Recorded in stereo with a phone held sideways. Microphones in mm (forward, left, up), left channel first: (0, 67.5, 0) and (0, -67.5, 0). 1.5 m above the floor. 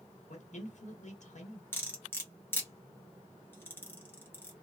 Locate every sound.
0.3 s a man speaking: 60° left (ahead or behind), 1.5 m
1.7 s cutlery clinking: 15° left (ahead or behind), 1.1 m